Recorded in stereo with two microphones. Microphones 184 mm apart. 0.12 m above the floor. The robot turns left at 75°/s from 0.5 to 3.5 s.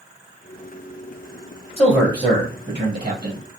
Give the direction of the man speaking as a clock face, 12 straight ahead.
12 o'clock.